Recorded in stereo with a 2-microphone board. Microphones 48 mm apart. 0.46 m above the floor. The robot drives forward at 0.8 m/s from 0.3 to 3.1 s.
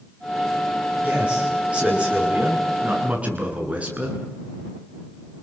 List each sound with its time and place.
1.0 s a man speaking: 25° right (ahead or behind), 9 m; by 4.2 s 30° right (ahead or behind), 7.5 m